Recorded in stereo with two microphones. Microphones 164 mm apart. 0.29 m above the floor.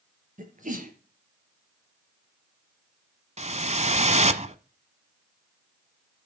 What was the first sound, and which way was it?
A sneeze, 50° right (ahead or behind).